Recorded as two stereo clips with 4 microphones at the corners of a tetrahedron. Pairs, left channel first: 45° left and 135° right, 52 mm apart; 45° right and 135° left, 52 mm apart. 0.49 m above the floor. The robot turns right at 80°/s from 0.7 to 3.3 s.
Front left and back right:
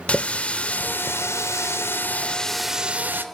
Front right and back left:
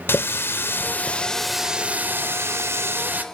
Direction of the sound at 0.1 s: 20° right.